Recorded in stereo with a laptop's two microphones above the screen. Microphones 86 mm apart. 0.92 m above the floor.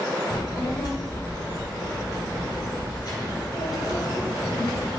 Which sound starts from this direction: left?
A child speaking, at 0.3 s.